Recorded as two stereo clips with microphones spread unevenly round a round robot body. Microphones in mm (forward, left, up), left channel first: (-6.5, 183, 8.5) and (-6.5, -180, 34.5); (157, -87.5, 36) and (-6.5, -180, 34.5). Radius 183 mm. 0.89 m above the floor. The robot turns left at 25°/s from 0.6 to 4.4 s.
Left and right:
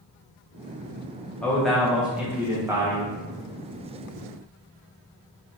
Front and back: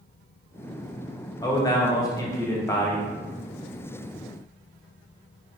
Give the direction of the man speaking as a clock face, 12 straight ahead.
11 o'clock.